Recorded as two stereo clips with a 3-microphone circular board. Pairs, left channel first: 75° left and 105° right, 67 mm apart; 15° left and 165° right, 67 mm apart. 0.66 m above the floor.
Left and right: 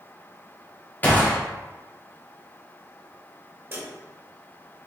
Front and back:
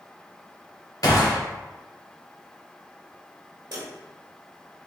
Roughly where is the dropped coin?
Behind right.